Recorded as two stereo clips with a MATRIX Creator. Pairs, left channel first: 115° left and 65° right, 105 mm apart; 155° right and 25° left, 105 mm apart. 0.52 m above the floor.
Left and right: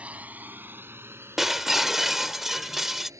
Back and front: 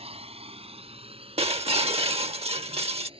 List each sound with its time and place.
0.0 s a drone: 10° left; by 3.2 s 10° right
1.4 s breaking glass: 20° left